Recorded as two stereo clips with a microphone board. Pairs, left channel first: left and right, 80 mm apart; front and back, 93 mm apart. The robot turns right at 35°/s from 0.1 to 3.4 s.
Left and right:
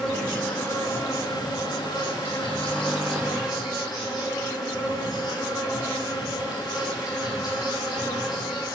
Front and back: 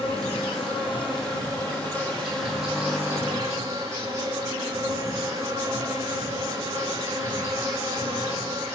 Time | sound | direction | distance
0.0 | an insect | 10° left | 8 m